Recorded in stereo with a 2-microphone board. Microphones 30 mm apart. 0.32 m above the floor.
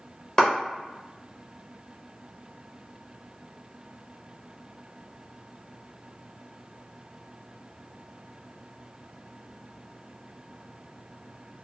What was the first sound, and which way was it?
A clap, 20° left (ahead or behind).